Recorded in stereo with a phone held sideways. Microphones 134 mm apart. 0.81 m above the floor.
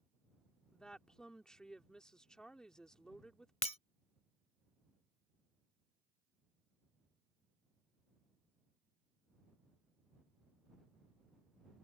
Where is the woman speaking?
5° left (ahead or behind).